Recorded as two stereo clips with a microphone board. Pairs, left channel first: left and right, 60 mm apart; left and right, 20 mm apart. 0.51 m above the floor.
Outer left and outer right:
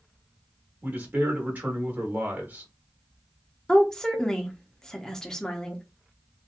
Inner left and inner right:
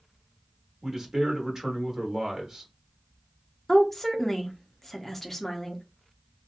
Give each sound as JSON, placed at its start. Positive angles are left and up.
{"t": 0.8, "sound": "a man speaking", "side_deg": -30, "distance_m": 1.2}
{"t": 3.7, "sound": "a woman speaking", "side_deg": 10, "distance_m": 0.6}